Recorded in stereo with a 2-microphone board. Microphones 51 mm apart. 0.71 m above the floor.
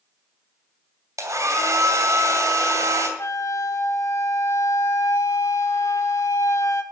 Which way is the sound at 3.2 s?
85° left.